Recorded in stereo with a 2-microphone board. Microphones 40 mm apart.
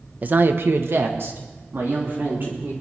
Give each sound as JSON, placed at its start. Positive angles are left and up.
{"t": 0.2, "sound": "a woman speaking", "side_deg": -40, "distance_m": 1.0}